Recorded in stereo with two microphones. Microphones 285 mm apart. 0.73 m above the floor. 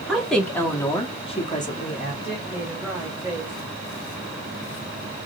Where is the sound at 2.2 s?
10° right (ahead or behind), 2 m.